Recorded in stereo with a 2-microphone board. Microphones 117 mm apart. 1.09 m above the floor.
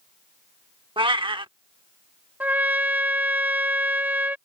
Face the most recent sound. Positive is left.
turn(degrees=-15)  # may be behind; listen again after turning